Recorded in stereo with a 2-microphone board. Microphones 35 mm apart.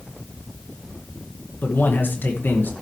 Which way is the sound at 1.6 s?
65° left (ahead or behind).